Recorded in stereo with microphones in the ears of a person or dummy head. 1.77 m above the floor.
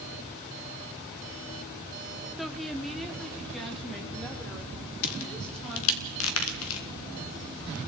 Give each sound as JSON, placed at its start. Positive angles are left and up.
{"t": 2.4, "sound": "a woman speaking", "side_deg": 5, "distance_m": 0.8}
{"t": 5.0, "sound": "a crack", "side_deg": 80, "distance_m": 1.5}